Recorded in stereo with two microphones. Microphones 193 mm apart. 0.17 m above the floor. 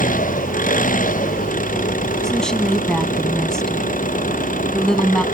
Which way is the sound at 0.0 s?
45° left (ahead or behind).